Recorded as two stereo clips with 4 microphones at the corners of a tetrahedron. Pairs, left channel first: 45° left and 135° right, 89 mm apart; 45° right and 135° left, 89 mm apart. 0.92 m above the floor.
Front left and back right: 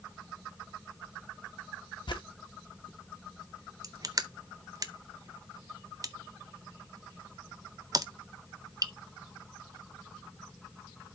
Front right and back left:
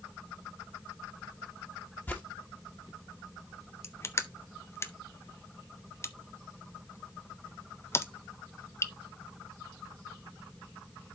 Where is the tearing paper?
20° left, 1.3 m.